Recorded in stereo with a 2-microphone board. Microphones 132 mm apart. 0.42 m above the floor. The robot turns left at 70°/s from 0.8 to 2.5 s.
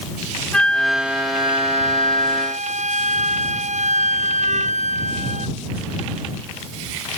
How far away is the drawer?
No drawer in this recording.